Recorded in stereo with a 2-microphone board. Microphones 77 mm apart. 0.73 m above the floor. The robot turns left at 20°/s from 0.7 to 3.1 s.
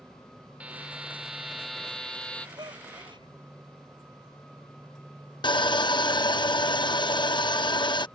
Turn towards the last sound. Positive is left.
turn(degrees=80)